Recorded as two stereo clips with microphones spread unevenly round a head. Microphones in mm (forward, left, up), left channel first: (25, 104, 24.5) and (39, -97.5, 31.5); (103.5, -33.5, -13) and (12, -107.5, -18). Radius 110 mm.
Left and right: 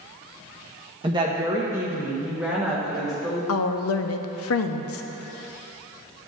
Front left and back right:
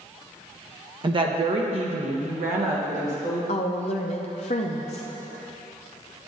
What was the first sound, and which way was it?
A woman speaking, 135° right.